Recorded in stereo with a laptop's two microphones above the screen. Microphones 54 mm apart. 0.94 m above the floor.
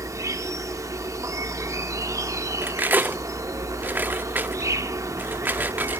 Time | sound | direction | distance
0.0 | an insect | 85° right | 1.2 m
2.6 | cutlery clinking | 35° right (ahead or behind) | 1.1 m